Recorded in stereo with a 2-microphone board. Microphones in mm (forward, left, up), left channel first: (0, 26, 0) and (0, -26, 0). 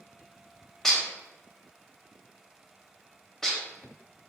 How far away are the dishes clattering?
About 0.6 m.